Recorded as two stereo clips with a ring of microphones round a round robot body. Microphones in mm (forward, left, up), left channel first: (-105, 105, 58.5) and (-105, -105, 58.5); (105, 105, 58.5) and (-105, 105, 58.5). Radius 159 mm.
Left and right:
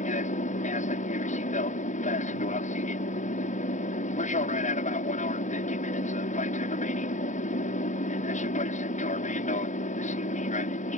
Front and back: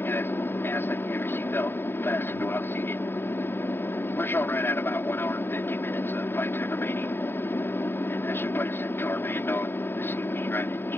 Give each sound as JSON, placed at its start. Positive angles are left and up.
{"t": 0.0, "sound": "an aircraft", "azimuth_deg": 70}